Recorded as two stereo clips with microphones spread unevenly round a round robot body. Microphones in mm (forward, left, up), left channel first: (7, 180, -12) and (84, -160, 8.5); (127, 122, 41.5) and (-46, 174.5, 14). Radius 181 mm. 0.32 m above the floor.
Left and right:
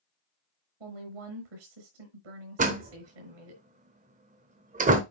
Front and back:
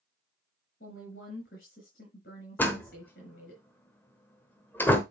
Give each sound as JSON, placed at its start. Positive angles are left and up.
{"t": 0.8, "sound": "a woman speaking", "azimuth_deg": -80, "distance_m": 5.0}
{"t": 2.6, "sound": "a door slam", "azimuth_deg": -100, "distance_m": 1.0}